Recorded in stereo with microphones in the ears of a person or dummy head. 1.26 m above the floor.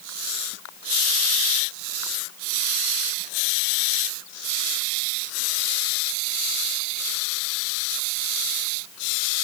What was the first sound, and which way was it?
Only background noise.